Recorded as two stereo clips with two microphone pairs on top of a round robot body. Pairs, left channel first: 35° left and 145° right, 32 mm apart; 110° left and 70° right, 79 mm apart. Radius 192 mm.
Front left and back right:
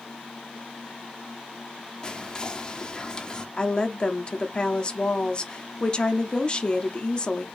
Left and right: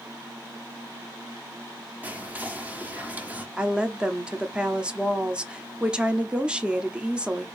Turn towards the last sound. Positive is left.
turn(degrees=0)